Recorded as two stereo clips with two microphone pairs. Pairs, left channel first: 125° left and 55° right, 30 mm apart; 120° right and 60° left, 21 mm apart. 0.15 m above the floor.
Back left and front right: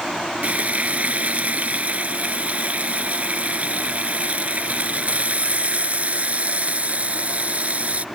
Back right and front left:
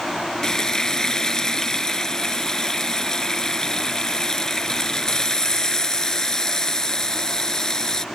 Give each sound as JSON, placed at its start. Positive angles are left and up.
{"t": 0.4, "sound": "frying", "azimuth_deg": -65}